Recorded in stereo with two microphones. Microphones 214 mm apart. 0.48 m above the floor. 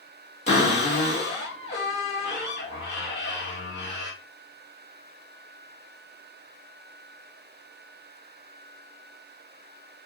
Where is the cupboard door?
30° left (ahead or behind), 1.5 m.